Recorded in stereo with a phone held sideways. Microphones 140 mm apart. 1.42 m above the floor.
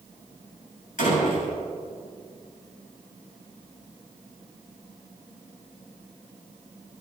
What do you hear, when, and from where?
1.0 s a door slam: 85° left, 8 m